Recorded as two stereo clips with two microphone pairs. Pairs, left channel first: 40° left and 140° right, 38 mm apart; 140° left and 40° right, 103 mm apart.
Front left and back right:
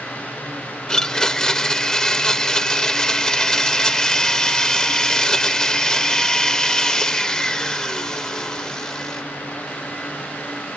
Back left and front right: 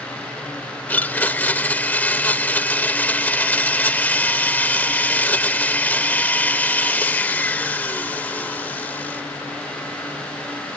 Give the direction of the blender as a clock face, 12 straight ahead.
9 o'clock.